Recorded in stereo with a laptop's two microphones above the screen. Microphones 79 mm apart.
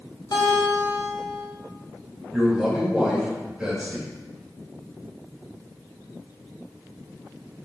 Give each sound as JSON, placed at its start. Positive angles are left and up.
{"t": 0.3, "sound": "a guitar", "side_deg": 70, "distance_m": 3.0}
{"t": 2.3, "sound": "a man speaking", "side_deg": -10, "distance_m": 1.8}